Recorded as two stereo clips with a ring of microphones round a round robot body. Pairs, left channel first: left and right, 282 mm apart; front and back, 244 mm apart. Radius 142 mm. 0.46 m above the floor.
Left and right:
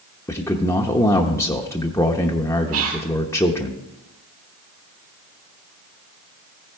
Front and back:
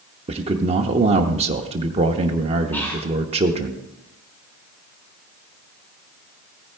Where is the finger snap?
No finger snap in this recording.